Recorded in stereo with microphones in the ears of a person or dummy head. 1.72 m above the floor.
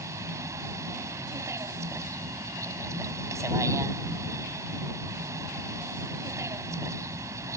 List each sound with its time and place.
0.0 s a vehicle: 15° right (ahead or behind)